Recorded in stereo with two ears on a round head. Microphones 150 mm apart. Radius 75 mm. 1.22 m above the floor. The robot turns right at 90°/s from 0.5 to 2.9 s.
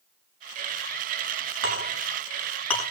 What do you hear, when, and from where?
1.6 s a clink: 85° right, 6.5 m; by 2.8 s 20° left (ahead or behind), 6.5 m